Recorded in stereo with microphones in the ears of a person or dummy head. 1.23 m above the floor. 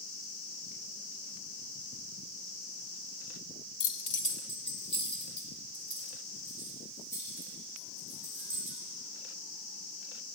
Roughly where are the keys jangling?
Left.